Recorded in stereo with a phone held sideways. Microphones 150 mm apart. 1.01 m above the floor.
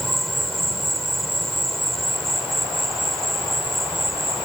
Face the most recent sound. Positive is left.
turn(degrees=0)  # may be behind; listen again after turning